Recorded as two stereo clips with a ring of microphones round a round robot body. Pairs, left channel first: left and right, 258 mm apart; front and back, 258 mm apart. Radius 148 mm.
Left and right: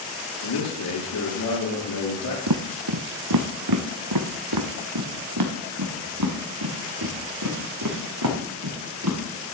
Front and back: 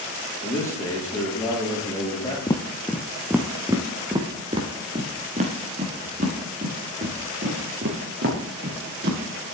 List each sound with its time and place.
0.4 s a man speaking: 80° left, 7 m
2.5 s footsteps: 75° right, 1.1 m; by 9.4 s 125° right, 4.5 m